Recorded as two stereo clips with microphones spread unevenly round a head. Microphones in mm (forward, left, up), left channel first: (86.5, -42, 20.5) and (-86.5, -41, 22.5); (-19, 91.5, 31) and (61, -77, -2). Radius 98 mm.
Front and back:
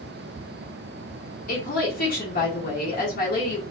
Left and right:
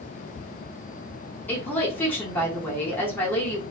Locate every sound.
1.5 s a woman speaking: 30° left, 1.4 m